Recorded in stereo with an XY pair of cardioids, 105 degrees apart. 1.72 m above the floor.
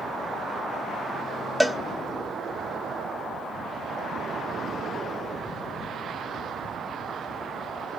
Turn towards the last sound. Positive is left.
turn(degrees=5)